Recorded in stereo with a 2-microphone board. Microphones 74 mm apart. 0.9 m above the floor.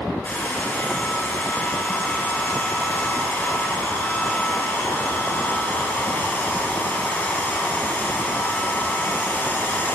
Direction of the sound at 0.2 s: 25° left (ahead or behind).